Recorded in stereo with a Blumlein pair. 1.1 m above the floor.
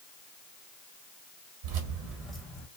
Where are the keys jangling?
50° right, 0.8 m; by 2.7 s 30° left, 0.6 m.